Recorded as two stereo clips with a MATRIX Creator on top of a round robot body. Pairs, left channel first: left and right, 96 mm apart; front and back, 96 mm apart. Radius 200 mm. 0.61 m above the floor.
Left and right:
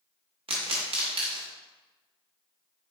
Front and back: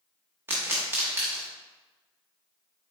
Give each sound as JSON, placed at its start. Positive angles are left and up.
{"t": 0.5, "sound": "a pop", "azimuth_deg": -115, "distance_m": 0.5}